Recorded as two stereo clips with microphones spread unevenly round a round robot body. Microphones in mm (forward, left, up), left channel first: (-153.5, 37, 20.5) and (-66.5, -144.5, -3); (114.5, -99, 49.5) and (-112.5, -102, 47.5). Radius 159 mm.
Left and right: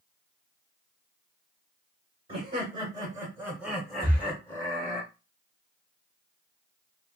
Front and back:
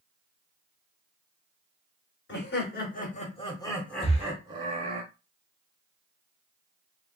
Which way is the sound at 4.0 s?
30° left.